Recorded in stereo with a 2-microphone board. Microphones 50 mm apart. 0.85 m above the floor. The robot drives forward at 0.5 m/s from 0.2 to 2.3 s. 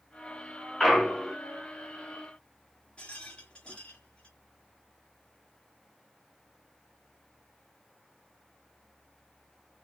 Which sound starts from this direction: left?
A rattle, at 3.0 s.